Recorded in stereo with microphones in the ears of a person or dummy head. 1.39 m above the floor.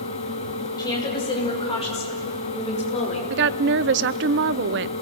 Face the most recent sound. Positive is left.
turn(degrees=-55)  # may be behind; listen again after turning